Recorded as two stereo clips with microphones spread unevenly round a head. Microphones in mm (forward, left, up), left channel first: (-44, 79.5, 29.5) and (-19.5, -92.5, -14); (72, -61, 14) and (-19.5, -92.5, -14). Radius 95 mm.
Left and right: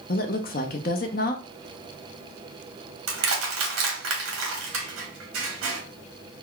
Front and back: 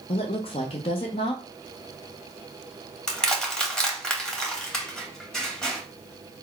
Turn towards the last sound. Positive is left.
turn(degrees=-65)